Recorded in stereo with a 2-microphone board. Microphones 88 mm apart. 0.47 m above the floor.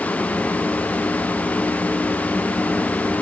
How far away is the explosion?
I don't hear an explosion.